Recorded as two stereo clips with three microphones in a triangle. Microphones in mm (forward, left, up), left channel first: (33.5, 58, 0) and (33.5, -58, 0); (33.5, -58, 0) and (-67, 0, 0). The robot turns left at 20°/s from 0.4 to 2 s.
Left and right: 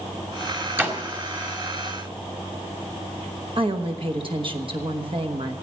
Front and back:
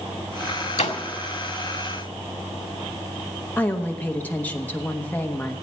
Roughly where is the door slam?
Ahead.